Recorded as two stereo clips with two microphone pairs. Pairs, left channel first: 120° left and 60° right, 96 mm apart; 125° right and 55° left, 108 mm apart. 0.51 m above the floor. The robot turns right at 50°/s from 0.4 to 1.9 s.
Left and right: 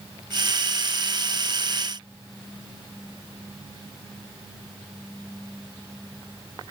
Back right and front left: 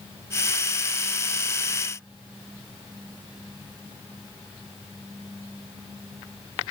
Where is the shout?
No shout in this recording.